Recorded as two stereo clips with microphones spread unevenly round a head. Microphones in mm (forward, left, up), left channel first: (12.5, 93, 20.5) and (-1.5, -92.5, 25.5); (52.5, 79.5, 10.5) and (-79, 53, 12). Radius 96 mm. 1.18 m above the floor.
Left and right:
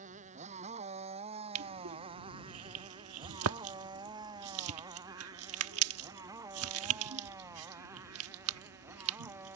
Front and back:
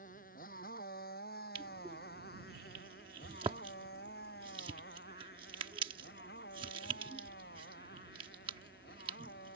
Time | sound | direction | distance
0.0 | a motorcycle | 40° right | ?
1.6 | crushing | 100° right | ?